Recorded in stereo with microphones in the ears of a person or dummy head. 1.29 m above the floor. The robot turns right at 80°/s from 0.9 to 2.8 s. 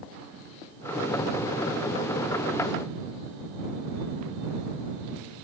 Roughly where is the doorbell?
No doorbell in this recording.